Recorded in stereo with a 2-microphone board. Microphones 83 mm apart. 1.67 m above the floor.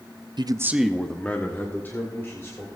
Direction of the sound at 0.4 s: 65° right (ahead or behind).